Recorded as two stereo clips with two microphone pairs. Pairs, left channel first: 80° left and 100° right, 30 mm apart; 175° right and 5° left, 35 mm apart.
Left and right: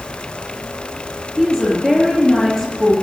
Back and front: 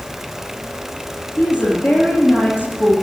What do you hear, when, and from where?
1.4 s a woman speaking: 160° left, 5 m